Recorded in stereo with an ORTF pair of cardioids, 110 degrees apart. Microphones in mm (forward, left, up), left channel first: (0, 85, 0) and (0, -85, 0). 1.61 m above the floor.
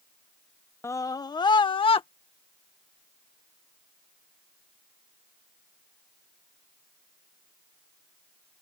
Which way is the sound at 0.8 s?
15° left.